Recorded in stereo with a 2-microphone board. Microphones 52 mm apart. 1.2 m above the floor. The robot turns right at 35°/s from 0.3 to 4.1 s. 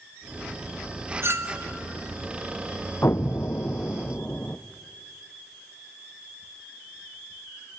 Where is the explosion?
100° left, 0.5 m; by 4.6 s 140° left, 0.5 m.